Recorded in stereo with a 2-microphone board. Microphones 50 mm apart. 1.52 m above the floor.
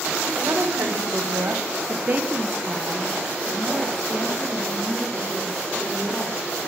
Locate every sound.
0.4 s a woman speaking: 70° right (ahead or behind), 1.2 m; by 6.4 s 25° left (ahead or behind), 2.5 m